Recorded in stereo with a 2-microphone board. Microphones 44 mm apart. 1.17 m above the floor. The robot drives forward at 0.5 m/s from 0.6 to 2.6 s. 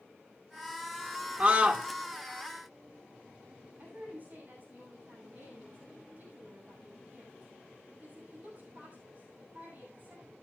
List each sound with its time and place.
1.4 s a scream: 35° right (ahead or behind), 2 m; by 1.9 s 30° right (ahead or behind), 2.5 m
3.8 s a woman speaking: 40° right (ahead or behind), 8.5 m